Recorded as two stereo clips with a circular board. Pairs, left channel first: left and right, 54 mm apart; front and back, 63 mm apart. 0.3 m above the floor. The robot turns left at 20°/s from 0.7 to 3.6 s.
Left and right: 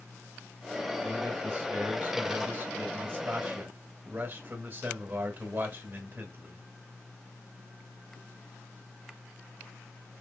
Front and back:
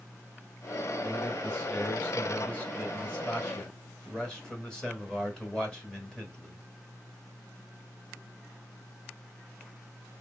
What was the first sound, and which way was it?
A man speaking, 20° right.